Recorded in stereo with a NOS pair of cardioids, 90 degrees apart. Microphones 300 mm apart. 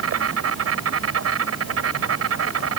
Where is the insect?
50° right.